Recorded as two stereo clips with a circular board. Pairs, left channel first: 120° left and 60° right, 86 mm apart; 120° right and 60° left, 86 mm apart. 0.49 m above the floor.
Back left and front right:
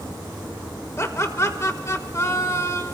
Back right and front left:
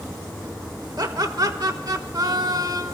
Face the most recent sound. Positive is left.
turn(degrees=80)